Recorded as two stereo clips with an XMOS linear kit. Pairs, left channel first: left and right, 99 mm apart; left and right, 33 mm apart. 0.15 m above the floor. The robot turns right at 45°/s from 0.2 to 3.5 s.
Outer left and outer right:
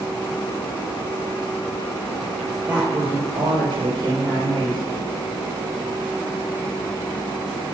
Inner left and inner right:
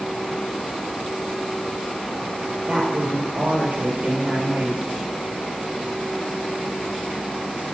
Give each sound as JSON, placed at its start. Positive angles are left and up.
{"t": 2.7, "sound": "a woman speaking", "azimuth_deg": -160, "distance_m": 3.5}